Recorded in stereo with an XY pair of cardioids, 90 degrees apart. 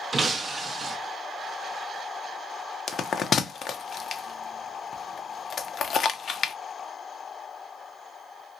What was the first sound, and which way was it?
Breaking glass, 40° right.